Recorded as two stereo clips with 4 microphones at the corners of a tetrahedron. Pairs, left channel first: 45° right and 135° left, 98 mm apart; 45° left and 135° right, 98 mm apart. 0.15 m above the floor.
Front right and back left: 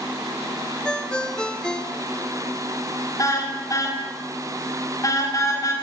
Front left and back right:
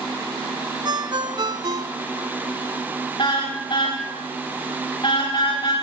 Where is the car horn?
10° left, 9 m.